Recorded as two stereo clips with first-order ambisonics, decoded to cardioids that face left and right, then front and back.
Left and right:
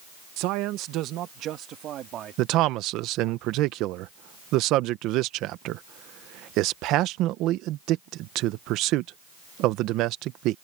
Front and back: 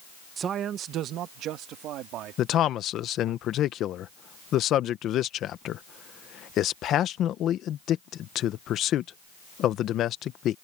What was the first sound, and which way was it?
A man speaking, 115° right.